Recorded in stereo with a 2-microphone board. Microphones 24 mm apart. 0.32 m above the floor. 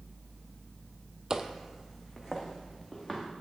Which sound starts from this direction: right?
Footsteps, at 1.3 s.